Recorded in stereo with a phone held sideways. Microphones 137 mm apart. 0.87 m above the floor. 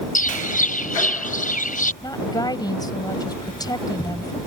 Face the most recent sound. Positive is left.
turn(degrees=30)  # may be behind; listen again after turning